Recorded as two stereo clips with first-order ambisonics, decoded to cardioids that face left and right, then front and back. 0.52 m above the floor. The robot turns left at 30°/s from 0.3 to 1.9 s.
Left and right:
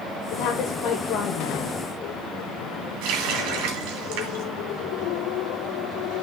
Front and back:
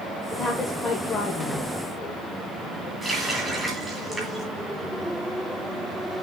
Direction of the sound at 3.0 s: 95° right.